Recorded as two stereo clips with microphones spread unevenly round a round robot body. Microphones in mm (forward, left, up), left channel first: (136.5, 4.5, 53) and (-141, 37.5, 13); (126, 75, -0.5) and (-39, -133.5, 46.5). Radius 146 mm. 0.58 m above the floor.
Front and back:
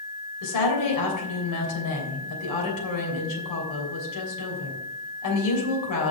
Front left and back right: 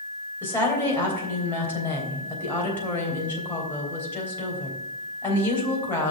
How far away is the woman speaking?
About 3 m.